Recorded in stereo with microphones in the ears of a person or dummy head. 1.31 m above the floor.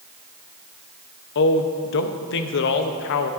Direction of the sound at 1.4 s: 65° left (ahead or behind).